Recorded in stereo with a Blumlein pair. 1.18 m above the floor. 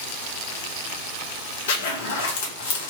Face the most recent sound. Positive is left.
turn(degrees=55)